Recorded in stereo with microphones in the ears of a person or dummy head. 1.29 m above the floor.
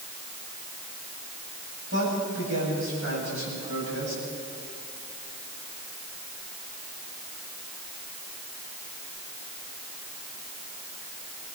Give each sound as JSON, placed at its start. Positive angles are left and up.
{"t": 1.9, "sound": "a man speaking", "side_deg": -85, "distance_m": 8.5}